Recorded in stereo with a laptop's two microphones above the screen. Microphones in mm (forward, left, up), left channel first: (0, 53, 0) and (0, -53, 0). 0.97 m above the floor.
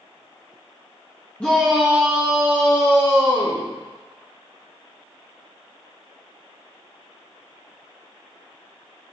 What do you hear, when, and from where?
1.4 s a shout: 10° left (ahead or behind), 1.3 m; by 3.6 s 45° right (ahead or behind), 2.5 m